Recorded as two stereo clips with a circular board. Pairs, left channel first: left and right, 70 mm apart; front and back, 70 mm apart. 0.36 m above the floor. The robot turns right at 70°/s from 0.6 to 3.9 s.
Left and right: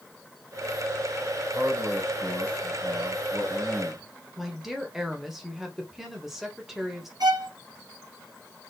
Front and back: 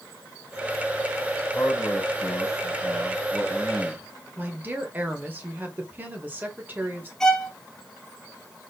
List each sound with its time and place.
1.5 s a man speaking: 35° right, 3 m; by 4.1 s 135° left, 3 m
4.4 s a woman speaking: 170° right, 1.3 m
7.2 s a violin: 80° right, 1.2 m